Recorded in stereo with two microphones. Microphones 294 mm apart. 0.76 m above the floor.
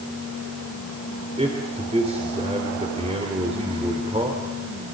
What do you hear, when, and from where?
1.4 s a man speaking: 20° right (ahead or behind), 3 m